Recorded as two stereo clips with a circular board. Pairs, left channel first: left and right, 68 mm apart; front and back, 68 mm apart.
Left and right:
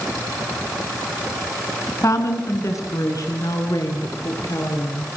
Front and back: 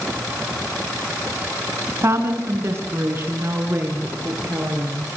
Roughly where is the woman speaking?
Behind left.